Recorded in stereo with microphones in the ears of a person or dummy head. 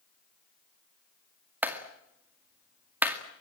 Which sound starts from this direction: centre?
A clap, at 1.6 s.